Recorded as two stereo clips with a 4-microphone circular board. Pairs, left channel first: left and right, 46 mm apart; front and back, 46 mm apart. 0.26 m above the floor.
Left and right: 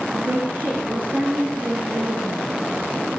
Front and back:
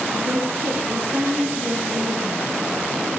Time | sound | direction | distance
0.1 | a woman speaking | 135° right | 4.5 m